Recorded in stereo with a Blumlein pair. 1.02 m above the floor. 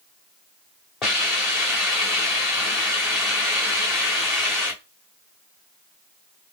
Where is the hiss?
25° left, 2 m.